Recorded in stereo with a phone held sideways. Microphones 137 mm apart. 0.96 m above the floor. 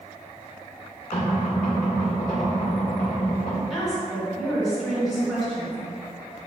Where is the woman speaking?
Centre (ahead or behind), 1.6 m.